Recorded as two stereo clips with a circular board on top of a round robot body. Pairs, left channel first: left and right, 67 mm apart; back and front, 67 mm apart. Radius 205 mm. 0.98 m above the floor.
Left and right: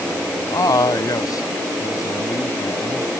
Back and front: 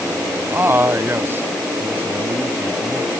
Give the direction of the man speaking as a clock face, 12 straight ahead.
10 o'clock.